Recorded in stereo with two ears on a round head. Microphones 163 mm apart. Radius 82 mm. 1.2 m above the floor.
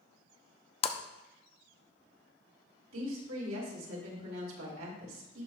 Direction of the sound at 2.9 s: 85° right.